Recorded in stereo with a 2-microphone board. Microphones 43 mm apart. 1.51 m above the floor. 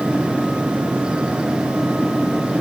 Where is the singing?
I don't hear singing.